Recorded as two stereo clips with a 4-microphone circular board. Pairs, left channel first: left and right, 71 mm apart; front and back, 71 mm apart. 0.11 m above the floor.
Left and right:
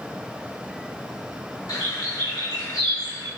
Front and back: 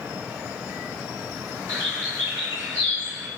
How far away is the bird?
About 1.0 m.